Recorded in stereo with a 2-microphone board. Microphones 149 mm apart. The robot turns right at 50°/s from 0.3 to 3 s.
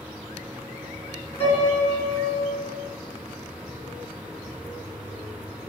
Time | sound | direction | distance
1.4 | a piano | 130° left | 2 m